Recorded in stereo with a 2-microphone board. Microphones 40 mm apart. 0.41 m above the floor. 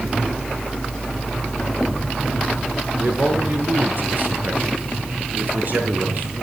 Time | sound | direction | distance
3.0 | a man speaking | 50° right (ahead or behind) | 6.5 m